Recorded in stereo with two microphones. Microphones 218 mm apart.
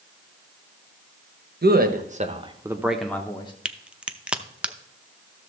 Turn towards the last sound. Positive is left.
turn(degrees=-5)  # may be behind; listen again after turning